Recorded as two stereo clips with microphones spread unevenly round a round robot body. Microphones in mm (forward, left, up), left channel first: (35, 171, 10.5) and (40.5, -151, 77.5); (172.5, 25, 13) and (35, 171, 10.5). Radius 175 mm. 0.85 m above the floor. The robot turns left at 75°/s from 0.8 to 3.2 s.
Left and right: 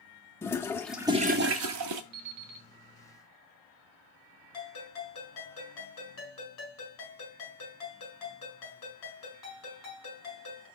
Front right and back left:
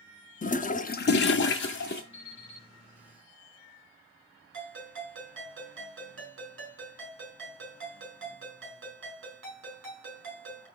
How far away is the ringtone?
About 4.5 m.